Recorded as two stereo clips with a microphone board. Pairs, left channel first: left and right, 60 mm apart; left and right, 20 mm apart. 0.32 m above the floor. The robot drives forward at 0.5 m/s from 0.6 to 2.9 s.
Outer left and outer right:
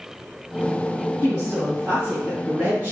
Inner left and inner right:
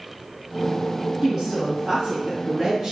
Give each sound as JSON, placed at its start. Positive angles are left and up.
{"t": 1.2, "sound": "a woman speaking", "side_deg": -20, "distance_m": 2.5}